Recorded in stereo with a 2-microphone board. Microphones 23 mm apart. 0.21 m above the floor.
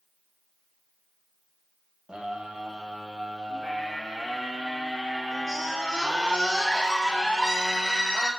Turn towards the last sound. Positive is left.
turn(degrees=-25)  # may be behind; listen again after turning